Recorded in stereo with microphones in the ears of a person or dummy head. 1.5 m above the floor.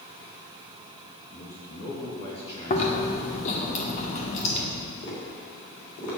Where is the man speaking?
30° left (ahead or behind), 2.5 m.